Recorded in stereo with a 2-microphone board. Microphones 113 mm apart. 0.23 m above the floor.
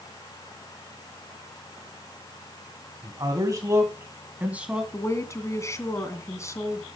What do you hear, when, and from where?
3.0 s a man speaking: 40° right (ahead or behind), 2.0 m; by 4.8 s 10° right (ahead or behind), 2 m
4.9 s a woman speaking: 25° left (ahead or behind), 2 m